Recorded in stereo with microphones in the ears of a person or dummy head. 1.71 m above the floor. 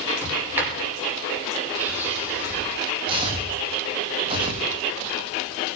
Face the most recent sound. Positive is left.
turn(degrees=-30)  # may be behind; listen again after turning